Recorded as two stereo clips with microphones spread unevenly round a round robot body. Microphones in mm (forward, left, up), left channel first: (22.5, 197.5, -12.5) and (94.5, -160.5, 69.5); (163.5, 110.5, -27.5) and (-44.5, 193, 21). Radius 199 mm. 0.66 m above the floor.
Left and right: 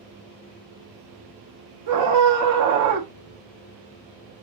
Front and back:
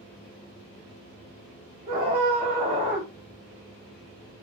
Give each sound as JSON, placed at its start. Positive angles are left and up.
{"t": 1.9, "sound": "a scream", "azimuth_deg": -105, "distance_m": 0.5}